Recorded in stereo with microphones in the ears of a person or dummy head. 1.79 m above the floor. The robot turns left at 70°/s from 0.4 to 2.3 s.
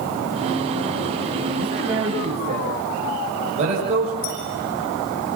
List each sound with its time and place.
1.6 s a man speaking: 15° left (ahead or behind), 7.5 m; by 4.1 s 35° right (ahead or behind), 7.5 m
4.2 s a clink: 50° left (ahead or behind), 8 m